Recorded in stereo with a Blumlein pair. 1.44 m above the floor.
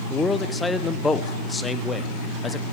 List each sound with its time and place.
0.1 s a man speaking: 10° left, 1.0 m